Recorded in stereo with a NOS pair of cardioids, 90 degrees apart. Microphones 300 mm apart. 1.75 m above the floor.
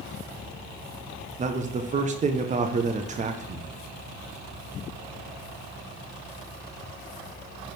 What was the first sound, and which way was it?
A man speaking, 25° right.